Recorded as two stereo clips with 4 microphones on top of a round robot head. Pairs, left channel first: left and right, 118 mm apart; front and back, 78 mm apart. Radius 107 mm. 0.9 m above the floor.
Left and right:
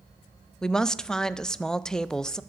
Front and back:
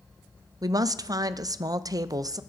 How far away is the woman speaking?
About 0.5 m.